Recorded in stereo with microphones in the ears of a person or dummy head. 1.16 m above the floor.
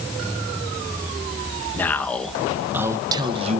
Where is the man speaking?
10° left (ahead or behind), 1.2 m; by 3.6 s 40° right (ahead or behind), 0.8 m.